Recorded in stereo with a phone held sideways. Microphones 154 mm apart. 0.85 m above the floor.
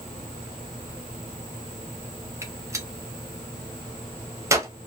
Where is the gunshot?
20° right (ahead or behind), 0.6 m.